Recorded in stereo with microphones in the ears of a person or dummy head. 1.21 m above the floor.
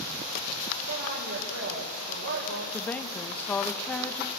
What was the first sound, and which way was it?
A woman speaking, 80° right.